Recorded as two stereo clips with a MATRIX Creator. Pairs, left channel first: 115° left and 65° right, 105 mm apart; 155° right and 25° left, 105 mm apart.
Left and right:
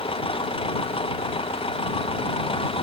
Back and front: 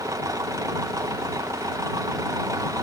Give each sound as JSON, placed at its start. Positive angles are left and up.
{"t": 0.0, "sound": "an engine running", "azimuth_deg": 80}